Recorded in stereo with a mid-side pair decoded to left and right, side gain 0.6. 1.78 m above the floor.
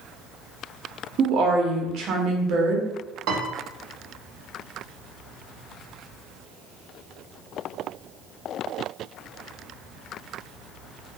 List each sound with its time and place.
1.2 s a woman speaking: 55° right, 0.9 m
3.3 s a piano: 60° right, 0.9 m